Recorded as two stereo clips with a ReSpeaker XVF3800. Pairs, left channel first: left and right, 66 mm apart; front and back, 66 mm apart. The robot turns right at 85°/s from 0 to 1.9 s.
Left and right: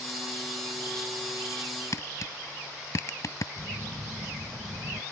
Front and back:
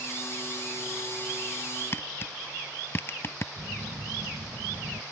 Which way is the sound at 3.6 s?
125° right.